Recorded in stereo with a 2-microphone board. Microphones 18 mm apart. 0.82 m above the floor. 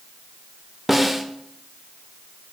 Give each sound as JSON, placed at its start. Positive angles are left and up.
{"t": 0.9, "sound": "a snare drum", "side_deg": -10, "distance_m": 0.6}